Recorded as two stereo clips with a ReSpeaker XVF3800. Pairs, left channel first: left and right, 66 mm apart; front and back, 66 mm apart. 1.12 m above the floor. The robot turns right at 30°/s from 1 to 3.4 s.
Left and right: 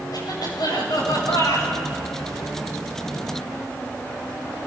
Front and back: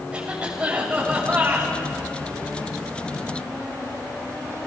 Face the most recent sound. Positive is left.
turn(degrees=180)